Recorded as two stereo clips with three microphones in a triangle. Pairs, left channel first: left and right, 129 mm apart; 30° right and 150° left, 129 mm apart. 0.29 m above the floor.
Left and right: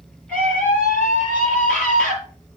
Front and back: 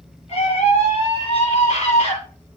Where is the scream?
5° left, 8 m.